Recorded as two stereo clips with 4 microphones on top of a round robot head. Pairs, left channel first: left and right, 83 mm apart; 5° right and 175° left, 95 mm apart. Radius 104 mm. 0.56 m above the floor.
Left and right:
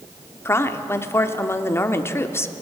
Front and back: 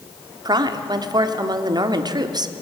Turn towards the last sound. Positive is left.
turn(degrees=145)